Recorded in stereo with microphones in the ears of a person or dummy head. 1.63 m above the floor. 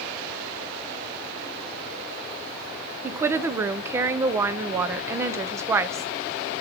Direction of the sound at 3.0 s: 15° right (ahead or behind).